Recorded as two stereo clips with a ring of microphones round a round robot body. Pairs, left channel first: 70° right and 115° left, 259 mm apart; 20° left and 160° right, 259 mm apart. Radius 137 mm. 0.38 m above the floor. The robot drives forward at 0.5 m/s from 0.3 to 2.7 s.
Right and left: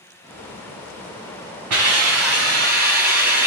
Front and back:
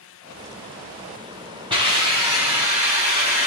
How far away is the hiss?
About 3 m.